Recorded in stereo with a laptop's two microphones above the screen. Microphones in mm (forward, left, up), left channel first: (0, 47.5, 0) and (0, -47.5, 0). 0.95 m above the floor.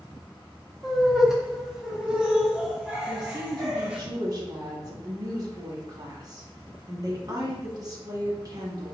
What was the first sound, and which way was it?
Laughter, 5° right (ahead or behind).